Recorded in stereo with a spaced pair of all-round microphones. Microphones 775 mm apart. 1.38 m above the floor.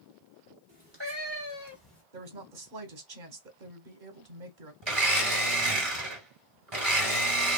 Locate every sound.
0.7 s a cat meowing: 25° right (ahead or behind), 1.1 m; by 2.0 s 5° left (ahead or behind), 1.4 m
2.1 s a woman speaking: 70° right (ahead or behind), 1.1 m
4.8 s a blender: 35° right (ahead or behind), 1.3 m